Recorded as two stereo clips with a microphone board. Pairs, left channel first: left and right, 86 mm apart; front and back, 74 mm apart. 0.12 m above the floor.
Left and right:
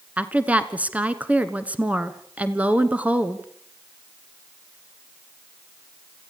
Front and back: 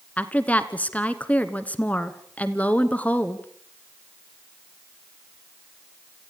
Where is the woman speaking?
40° right, 1.2 m.